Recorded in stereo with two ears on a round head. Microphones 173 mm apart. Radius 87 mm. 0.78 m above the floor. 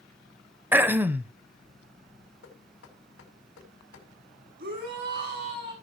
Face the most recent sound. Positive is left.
turn(degrees=-55)  # may be behind; listen again after turning